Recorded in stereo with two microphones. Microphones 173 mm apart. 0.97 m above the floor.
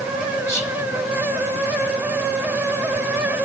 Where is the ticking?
No ticking in this recording.